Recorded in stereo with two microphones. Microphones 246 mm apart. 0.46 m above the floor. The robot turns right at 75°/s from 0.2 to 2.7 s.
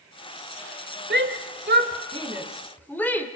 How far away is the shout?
About 1.9 m.